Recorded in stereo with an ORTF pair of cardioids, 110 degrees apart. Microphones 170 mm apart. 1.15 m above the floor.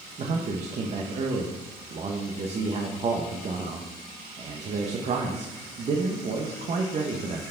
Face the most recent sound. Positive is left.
turn(degrees=-40)